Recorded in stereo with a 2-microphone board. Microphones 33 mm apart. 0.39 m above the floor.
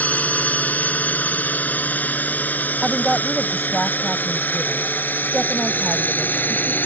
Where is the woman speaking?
10° right (ahead or behind).